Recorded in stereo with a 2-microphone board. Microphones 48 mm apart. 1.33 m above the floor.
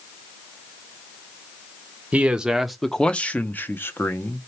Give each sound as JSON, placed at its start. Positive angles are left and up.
{"t": 2.1, "sound": "a man speaking", "side_deg": -25, "distance_m": 0.7}